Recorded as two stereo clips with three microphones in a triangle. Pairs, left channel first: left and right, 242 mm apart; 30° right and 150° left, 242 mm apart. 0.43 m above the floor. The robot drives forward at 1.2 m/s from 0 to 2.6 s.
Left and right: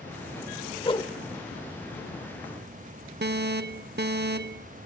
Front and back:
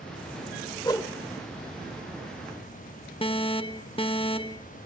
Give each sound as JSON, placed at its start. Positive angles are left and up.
{"t": 0.8, "sound": "a whoosh", "azimuth_deg": 30, "distance_m": 1.2}
{"t": 3.2, "sound": "an alarm", "azimuth_deg": -90, "distance_m": 0.6}